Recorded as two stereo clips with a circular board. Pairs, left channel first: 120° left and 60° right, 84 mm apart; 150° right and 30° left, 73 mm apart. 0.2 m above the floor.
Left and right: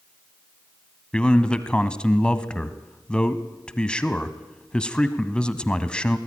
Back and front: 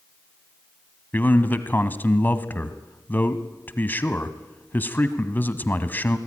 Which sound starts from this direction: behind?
A man speaking, at 1.1 s.